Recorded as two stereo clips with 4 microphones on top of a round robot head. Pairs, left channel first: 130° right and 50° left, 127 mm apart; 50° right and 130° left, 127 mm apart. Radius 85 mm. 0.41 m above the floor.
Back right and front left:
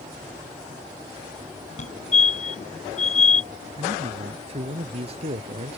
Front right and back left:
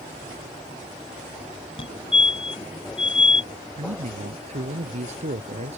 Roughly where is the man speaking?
Left.